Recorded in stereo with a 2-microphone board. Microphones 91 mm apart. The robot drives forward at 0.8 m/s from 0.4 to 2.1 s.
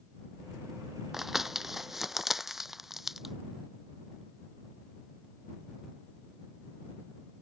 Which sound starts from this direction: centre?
Crumpling, at 1.1 s.